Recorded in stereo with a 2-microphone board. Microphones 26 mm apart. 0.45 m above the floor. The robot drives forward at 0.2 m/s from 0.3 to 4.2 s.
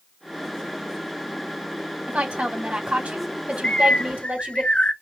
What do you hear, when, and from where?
2.1 s a woman speaking: 70° right (ahead or behind), 3 m; by 4.6 s 65° right (ahead or behind), 3 m
3.6 s a bird: 45° left (ahead or behind), 0.9 m